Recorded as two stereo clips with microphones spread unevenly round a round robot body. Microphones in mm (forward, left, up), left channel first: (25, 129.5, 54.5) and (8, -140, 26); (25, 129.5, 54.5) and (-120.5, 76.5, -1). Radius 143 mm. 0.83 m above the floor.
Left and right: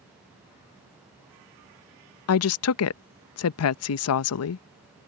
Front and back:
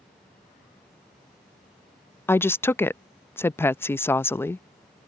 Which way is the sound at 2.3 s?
110° left.